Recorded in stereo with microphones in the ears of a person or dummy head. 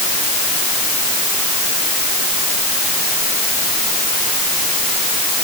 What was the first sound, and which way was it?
Only background noise.